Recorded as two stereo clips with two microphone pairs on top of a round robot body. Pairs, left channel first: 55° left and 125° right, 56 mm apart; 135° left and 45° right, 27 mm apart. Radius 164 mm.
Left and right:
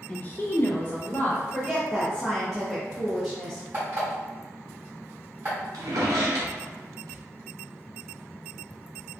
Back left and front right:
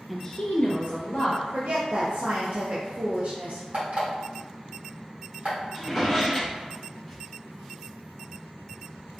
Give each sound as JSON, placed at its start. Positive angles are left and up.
{"t": 0.1, "sound": "a woman speaking", "azimuth_deg": 10, "distance_m": 0.6}
{"t": 1.5, "sound": "a woman speaking", "azimuth_deg": -40, "distance_m": 0.7}
{"t": 3.7, "sound": "an alarm clock", "azimuth_deg": -70, "distance_m": 1.7}
{"t": 5.7, "sound": "a drawer", "azimuth_deg": -135, "distance_m": 0.6}